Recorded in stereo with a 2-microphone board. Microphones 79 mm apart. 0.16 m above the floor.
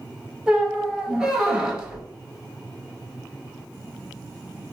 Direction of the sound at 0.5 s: 10° right (ahead or behind).